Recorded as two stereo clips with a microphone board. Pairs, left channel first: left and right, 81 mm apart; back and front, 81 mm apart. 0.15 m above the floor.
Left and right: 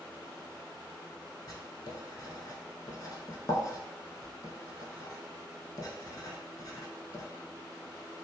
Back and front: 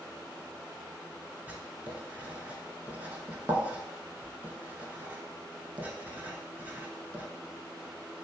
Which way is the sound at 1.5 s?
65° left.